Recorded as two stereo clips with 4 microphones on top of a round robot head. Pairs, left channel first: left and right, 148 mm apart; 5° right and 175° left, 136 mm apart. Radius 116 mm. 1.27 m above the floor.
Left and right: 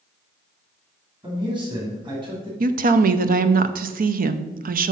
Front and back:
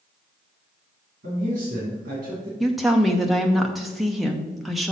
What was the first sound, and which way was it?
A man speaking, 145° right.